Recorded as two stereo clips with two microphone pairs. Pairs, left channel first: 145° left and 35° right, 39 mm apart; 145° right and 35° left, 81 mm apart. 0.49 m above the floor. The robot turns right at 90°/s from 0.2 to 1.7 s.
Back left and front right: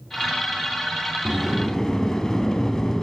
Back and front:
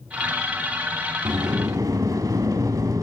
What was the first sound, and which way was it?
A sliding door, 30° left.